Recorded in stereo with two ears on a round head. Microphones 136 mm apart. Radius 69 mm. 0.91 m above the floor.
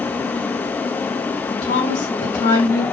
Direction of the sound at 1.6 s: 45° left (ahead or behind).